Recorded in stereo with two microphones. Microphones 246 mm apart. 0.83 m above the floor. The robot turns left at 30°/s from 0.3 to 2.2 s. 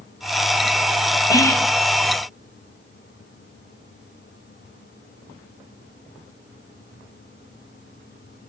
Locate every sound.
1.3 s whispering: 15° left (ahead or behind), 0.7 m; by 1.7 s 10° left (ahead or behind), 0.7 m